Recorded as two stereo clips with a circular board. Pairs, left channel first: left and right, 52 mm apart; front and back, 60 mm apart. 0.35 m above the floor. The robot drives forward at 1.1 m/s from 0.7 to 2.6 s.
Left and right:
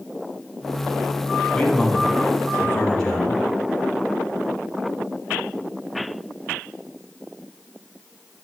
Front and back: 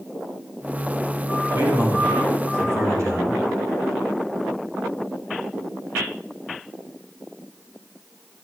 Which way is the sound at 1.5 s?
160° left.